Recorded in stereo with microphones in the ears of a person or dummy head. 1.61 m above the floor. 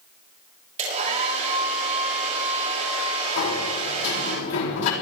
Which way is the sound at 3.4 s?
80° left.